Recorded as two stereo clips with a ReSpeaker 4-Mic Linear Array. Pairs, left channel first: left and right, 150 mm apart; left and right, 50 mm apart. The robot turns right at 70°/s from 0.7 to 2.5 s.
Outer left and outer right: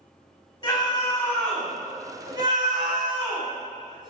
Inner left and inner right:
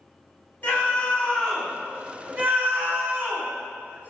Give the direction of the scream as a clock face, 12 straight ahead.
8 o'clock.